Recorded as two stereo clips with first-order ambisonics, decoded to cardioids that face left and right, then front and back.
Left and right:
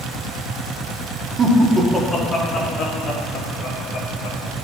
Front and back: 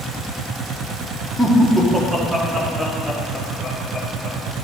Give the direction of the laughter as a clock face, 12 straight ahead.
3 o'clock.